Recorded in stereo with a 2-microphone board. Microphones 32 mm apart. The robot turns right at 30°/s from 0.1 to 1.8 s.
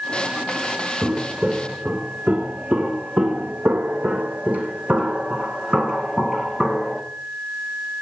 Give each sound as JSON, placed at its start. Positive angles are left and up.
{"t": 1.0, "sound": "footsteps", "side_deg": -35, "distance_m": 3.0}